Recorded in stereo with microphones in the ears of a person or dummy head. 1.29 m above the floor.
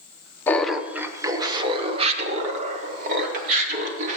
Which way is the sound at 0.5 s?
10° left (ahead or behind).